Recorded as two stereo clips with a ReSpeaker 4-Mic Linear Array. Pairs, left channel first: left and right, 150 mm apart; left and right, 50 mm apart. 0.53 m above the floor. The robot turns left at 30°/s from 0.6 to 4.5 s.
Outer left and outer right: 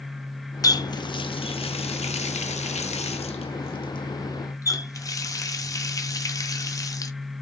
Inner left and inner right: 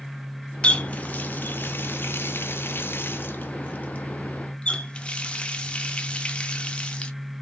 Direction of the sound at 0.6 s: 25° left (ahead or behind).